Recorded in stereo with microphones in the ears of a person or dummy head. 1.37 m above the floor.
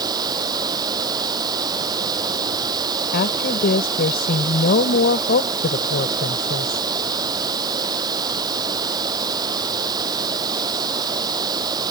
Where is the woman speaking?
55° left (ahead or behind).